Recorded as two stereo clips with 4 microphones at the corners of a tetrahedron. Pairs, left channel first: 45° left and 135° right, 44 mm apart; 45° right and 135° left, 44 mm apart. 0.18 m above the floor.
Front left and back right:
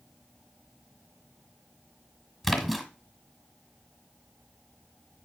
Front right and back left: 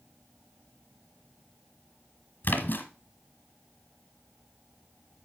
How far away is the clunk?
I don't hear a clunk.